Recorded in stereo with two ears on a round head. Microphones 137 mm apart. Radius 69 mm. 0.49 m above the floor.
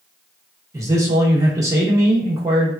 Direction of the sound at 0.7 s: 20° right (ahead or behind).